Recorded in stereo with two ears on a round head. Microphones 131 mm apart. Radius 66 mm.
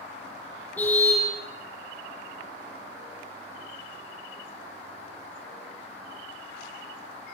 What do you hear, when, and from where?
0.8 s a car horn: 10° left (ahead or behind), 9.5 m